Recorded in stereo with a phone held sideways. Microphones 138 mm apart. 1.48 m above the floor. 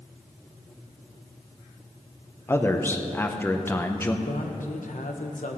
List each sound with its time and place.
2.5 s a man speaking: 15° left (ahead or behind), 0.9 m
4.2 s a man speaking: 80° left, 1.3 m